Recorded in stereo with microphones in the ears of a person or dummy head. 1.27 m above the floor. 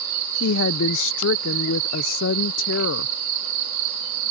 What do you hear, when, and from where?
0.4 s a woman speaking: 65° left (ahead or behind)